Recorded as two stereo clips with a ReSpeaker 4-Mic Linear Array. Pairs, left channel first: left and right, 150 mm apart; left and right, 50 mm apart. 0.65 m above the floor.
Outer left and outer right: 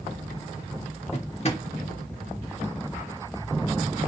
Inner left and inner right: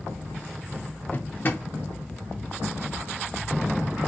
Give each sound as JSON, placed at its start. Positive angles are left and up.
{"t": 1.1, "sound": "a drawer", "side_deg": 45, "distance_m": 0.9}